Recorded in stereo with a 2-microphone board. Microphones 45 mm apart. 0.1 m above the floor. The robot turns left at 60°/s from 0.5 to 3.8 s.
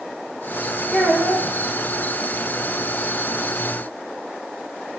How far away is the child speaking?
About 4.5 m.